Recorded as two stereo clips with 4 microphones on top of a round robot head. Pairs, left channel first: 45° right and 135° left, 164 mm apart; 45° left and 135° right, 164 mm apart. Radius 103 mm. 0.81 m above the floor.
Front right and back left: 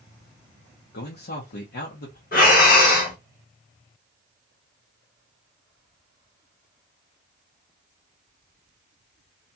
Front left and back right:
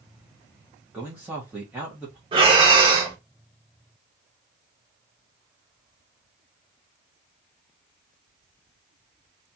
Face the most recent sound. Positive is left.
turn(degrees=-80)